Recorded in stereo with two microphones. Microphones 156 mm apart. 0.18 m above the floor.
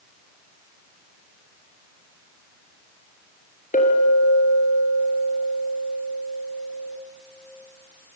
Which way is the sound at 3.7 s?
60° left (ahead or behind).